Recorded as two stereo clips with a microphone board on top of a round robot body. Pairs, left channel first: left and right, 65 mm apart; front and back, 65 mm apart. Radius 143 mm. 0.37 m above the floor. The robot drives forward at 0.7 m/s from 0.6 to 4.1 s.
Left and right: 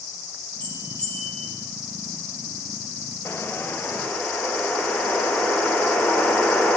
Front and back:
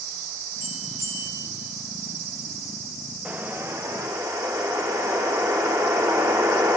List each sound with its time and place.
0.6 s a bell: 155° left, 5.5 m; by 1.5 s 160° left, 6 m
3.2 s a whoosh: 125° left, 0.7 m; by 6.8 s 155° left, 1.1 m